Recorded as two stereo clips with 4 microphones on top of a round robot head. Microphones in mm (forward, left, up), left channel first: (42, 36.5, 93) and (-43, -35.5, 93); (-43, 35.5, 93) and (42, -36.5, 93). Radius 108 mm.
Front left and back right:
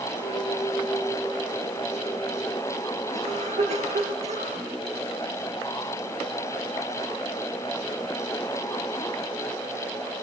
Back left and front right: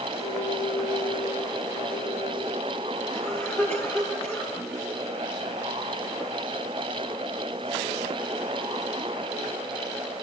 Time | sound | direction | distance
0.2 | a clink | 110° left | 6 m
3.1 | a cough | 150° right | 9.5 m